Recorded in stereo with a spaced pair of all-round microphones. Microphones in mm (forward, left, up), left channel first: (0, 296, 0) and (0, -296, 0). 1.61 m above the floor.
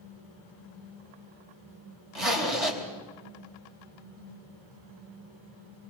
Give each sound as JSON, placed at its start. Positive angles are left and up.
{"t": 2.1, "sound": "a zipper", "side_deg": -65, "distance_m": 3.5}